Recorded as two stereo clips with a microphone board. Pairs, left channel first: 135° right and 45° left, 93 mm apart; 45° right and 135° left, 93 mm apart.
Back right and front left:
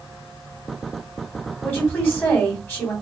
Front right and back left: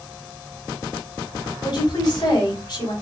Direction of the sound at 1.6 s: 70° right.